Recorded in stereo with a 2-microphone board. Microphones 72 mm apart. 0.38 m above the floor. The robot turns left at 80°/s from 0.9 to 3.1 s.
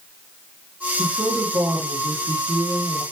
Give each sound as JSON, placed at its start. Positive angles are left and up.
{"t": 1.0, "sound": "a woman speaking", "azimuth_deg": -5, "distance_m": 4.5}